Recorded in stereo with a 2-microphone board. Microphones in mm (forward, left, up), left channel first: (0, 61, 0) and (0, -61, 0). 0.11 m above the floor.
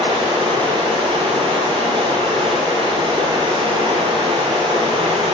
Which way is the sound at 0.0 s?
50° right (ahead or behind).